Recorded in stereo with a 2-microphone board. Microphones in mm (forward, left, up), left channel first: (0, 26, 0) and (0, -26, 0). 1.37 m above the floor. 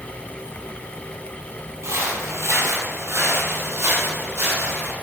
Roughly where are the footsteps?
Right.